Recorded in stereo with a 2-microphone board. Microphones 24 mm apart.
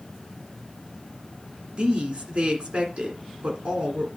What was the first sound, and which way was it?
A woman speaking, 50° right (ahead or behind).